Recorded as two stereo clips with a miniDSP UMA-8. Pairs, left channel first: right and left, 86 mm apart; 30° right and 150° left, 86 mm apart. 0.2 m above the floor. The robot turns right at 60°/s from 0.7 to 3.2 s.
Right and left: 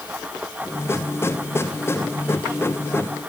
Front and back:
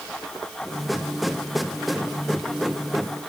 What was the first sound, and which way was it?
Only background noise.